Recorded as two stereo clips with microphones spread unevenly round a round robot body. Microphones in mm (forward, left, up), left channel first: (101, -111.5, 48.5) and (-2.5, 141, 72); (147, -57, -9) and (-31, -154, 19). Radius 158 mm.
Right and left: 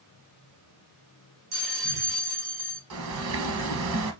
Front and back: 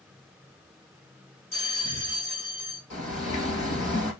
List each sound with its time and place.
1.5 s a bell: 115° left, 3 m
2.9 s a bird: 90° left, 1.2 m